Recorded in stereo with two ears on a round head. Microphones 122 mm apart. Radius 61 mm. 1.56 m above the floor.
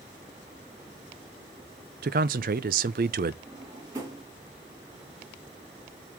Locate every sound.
2.0 s a man speaking: 70° right (ahead or behind), 0.6 m
3.5 s a drawer: 20° right (ahead or behind), 3.5 m